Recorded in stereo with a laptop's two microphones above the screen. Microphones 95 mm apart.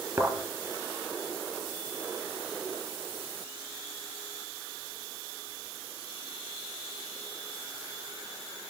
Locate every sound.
0.2 s a thud: 30° right (ahead or behind), 4 m